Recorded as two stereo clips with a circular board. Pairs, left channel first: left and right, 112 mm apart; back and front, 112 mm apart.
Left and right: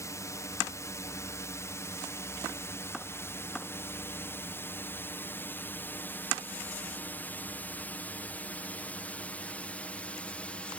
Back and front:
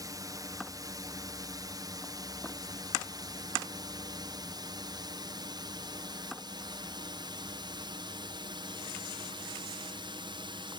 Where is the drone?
40° left; by 10.8 s 15° left.